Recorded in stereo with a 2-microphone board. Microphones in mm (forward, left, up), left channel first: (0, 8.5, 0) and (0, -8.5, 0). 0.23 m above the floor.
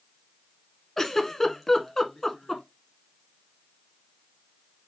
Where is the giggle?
20° left (ahead or behind), 1.0 m.